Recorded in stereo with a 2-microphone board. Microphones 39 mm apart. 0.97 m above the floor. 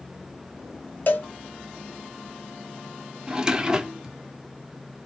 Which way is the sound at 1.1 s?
50° left (ahead or behind).